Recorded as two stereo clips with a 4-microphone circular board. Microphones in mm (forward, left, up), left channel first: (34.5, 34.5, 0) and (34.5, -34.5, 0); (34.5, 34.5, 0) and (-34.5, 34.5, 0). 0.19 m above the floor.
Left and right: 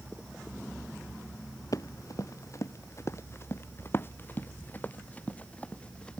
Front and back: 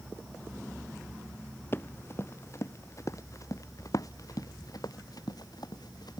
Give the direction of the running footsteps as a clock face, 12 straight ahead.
10 o'clock.